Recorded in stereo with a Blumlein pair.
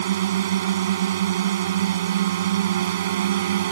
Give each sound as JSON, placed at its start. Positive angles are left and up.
{"t": 0.0, "sound": "a drone", "azimuth_deg": -60}